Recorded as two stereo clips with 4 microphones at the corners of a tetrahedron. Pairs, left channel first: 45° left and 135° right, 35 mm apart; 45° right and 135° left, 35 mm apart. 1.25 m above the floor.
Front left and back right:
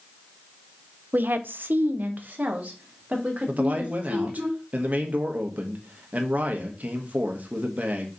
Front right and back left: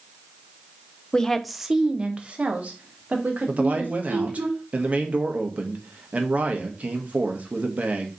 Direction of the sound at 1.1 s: 110° right.